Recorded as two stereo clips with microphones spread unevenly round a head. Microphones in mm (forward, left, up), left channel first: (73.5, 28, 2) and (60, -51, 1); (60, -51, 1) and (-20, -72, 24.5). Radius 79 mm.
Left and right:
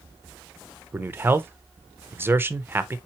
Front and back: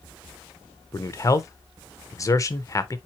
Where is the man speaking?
35° right, 0.8 m.